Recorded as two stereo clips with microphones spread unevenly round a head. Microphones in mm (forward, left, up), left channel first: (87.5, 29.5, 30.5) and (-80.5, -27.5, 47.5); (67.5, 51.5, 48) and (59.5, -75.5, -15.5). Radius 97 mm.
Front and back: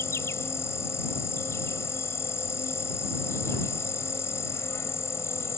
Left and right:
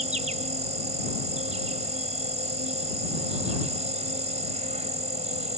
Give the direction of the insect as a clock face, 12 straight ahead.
2 o'clock.